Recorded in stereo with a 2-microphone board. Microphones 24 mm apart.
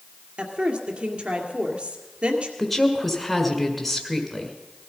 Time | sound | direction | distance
0.4 | a woman speaking | 55° right (ahead or behind) | 2 m
2.6 | a woman speaking | 5° left (ahead or behind) | 1.5 m